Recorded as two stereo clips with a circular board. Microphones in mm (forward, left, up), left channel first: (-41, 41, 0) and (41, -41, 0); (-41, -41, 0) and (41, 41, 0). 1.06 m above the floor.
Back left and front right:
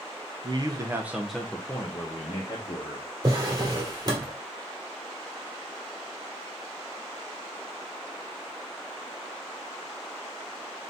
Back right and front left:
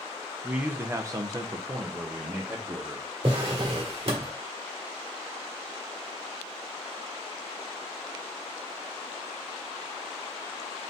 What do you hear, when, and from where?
0.4 s a man speaking: 30° right, 0.7 m; by 3.1 s 100° left, 1.2 m
3.2 s a drawer: 10° left, 1.4 m